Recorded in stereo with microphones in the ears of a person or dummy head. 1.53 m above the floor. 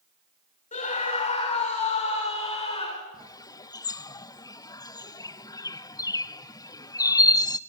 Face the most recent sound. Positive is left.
turn(degrees=20)  # may be behind; listen again after turning